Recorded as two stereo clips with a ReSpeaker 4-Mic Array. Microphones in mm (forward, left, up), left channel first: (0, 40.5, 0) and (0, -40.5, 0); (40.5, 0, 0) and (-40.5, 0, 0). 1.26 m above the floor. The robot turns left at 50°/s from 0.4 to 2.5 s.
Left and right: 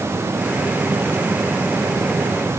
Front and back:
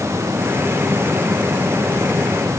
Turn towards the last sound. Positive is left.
No sound to turn to.